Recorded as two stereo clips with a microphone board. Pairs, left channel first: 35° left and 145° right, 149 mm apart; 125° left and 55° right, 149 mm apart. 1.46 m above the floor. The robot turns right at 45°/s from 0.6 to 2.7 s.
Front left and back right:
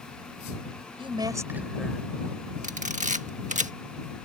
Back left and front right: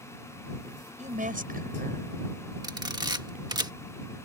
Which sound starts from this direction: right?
A woman speaking, at 1.0 s.